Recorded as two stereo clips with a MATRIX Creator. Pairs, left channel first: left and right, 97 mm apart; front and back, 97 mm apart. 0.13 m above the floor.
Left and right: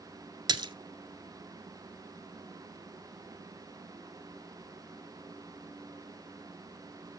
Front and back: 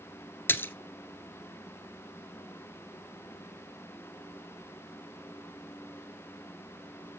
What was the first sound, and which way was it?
A splash, 65° right.